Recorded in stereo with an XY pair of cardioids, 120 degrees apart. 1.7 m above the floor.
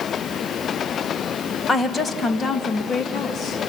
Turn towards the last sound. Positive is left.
turn(degrees=50)